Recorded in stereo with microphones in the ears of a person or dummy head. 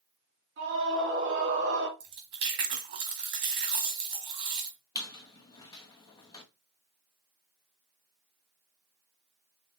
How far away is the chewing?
About 1.7 m.